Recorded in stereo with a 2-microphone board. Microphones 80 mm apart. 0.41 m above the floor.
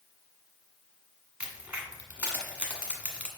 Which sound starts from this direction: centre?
A crack, at 1.4 s.